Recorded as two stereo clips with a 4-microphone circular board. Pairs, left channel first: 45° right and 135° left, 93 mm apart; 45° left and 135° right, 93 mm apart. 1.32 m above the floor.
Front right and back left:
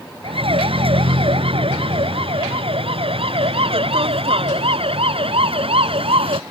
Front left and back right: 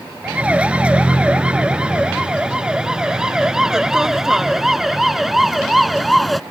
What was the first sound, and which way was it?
A siren, 150° left.